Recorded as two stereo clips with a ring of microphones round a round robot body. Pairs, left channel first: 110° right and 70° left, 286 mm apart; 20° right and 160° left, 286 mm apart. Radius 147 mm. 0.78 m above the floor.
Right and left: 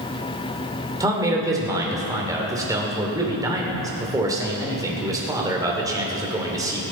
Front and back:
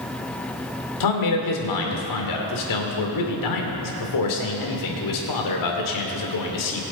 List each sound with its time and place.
1.0 s a man speaking: 10° right, 2.5 m